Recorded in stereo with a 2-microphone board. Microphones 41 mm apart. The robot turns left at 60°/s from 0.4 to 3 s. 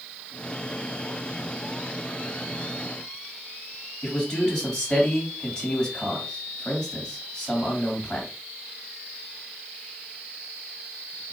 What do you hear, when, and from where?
4.0 s a man speaking: 20° left (ahead or behind), 2.5 m